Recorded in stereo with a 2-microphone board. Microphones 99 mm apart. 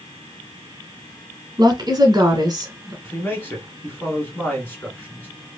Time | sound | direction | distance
1.6 | a woman speaking | 45° right (ahead or behind) | 1.5 m
3.0 | a man speaking | 20° left (ahead or behind) | 1.4 m